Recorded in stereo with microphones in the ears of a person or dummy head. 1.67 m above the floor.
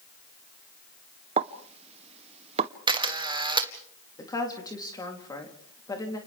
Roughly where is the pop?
Right.